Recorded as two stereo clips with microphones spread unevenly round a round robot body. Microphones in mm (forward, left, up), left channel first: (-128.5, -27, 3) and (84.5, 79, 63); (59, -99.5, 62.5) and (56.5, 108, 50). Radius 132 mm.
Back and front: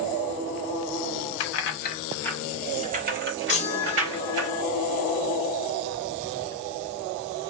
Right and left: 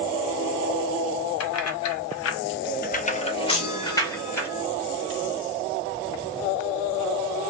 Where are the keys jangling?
120° right, 0.6 m; by 4.5 s 10° right, 1.4 m.